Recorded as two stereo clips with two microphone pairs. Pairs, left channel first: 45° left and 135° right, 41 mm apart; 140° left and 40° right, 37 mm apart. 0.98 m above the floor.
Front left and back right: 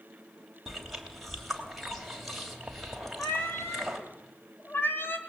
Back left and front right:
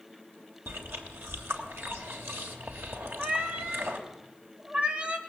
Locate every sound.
0.7 s chewing: 50° right, 3 m
3.2 s a cat meowing: 15° left, 1.7 m